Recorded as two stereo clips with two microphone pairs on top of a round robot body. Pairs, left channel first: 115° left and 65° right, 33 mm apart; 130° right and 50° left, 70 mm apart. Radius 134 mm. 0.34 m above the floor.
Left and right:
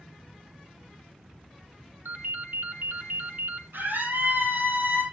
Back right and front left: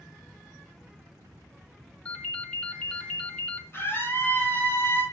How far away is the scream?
About 8.5 m.